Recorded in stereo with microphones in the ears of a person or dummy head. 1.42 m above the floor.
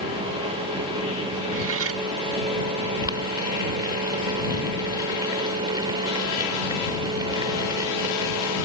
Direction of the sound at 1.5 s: 80° right.